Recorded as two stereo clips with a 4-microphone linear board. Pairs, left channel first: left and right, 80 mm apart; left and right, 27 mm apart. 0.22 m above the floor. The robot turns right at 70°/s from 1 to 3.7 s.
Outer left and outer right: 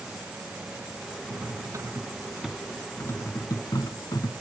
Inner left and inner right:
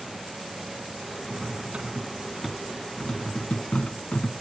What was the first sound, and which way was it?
Cutlery clinking, 60° right (ahead or behind).